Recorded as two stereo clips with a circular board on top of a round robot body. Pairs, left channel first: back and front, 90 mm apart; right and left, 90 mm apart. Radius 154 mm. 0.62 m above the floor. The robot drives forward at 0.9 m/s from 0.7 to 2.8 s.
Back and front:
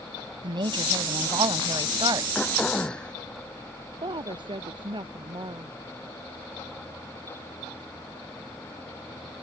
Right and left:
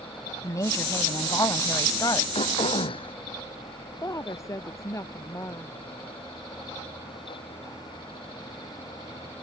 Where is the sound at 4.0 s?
35° right.